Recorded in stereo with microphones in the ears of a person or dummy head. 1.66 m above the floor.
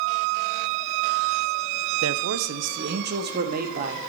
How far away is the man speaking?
About 0.7 m.